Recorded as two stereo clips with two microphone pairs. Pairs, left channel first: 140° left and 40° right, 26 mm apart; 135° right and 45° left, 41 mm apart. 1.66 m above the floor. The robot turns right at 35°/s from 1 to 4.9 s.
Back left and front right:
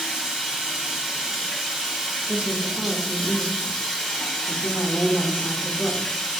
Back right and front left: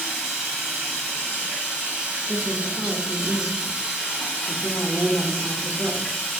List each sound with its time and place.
0.0 s running water: 10° right, 1.6 m; by 6.4 s 125° left, 1.6 m
2.3 s a woman speaking: 45° right, 0.8 m; by 6.1 s 45° left, 0.8 m